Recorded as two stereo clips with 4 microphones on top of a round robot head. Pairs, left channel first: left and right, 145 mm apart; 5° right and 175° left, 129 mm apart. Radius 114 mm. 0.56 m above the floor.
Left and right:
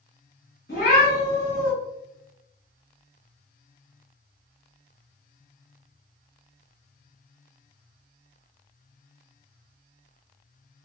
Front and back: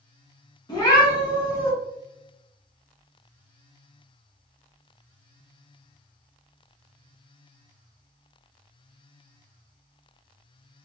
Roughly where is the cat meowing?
Ahead left.